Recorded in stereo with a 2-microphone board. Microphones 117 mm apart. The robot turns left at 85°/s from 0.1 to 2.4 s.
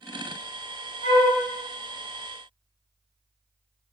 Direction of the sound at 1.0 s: 65° left (ahead or behind).